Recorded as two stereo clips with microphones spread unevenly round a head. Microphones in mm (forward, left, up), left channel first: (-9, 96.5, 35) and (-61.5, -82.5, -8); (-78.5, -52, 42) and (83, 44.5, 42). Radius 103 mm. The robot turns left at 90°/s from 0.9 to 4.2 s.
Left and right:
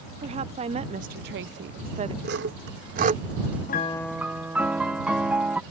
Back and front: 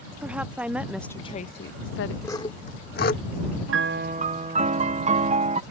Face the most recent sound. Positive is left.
turn(degrees=-25)